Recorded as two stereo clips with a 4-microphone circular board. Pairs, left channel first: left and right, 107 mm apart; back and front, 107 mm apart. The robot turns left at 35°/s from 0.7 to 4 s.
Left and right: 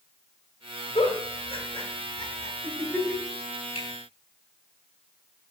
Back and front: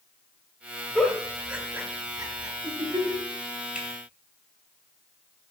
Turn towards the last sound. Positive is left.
turn(degrees=70)